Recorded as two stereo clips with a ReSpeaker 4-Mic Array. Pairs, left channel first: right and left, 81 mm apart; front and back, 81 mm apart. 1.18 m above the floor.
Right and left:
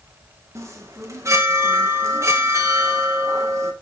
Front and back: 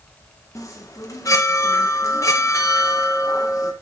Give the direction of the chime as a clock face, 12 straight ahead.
11 o'clock.